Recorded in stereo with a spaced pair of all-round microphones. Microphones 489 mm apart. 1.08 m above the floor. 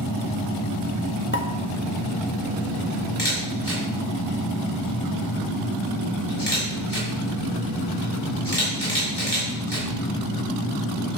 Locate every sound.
1.3 s a pop: 25° left (ahead or behind), 1.0 m
3.2 s a camera shutter: 55° left (ahead or behind), 5.5 m